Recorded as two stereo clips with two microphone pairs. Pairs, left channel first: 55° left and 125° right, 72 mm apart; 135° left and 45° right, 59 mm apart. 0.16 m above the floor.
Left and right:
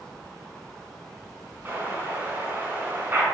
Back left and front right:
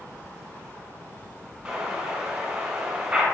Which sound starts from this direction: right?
An explosion, at 1.6 s.